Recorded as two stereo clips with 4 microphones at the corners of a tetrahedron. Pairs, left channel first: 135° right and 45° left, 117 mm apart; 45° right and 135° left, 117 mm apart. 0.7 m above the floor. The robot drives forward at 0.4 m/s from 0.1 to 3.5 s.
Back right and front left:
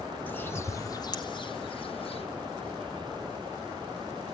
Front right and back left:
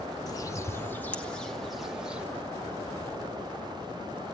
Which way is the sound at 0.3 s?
65° right.